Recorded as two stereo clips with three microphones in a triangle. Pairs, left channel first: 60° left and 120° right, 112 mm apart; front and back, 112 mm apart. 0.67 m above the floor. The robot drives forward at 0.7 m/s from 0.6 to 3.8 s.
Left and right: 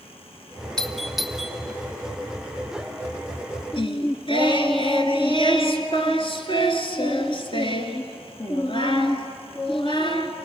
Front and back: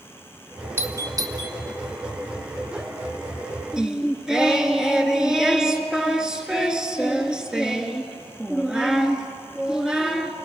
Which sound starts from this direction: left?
Singing, at 3.7 s.